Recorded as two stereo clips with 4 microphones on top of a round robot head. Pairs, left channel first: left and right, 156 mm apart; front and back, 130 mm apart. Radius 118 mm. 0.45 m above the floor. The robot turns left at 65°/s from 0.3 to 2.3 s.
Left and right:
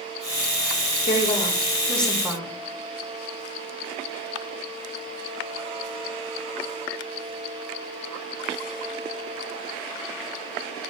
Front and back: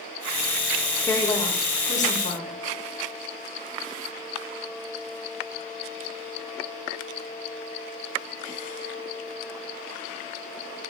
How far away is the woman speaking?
About 2 m.